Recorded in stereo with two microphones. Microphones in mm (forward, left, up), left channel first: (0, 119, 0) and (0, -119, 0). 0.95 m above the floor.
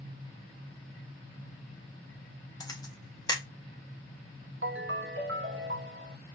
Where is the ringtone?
55° right (ahead or behind), 0.5 m.